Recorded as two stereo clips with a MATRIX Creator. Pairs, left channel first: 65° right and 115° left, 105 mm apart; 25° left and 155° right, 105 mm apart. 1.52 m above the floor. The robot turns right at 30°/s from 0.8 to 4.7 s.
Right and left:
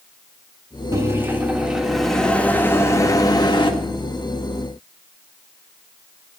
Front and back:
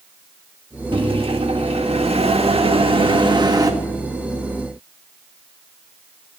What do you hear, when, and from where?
0.9 s a microwave: 170° left, 1.6 m; by 3.7 s 105° right, 1.6 m